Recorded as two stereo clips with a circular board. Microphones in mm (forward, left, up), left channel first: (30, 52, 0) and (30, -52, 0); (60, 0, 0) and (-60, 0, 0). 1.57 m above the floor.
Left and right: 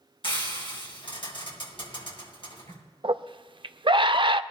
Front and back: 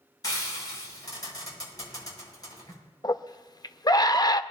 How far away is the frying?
About 7 m.